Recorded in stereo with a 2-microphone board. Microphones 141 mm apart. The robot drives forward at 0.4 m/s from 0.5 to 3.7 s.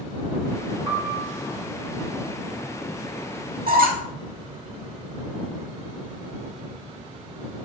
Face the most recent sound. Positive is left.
turn(degrees=-85)